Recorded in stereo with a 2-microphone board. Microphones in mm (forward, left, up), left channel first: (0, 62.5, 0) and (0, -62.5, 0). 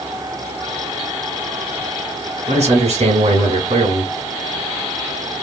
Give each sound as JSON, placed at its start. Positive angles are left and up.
{"t": 2.5, "sound": "a man speaking", "side_deg": -60, "distance_m": 1.9}